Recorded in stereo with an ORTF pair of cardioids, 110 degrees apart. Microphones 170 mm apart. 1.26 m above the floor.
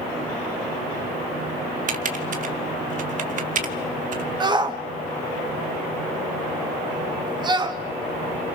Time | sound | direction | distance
1.9 | typing on a keyboard | 50° right | 1.6 m
4.4 | a shout | 25° right | 1.6 m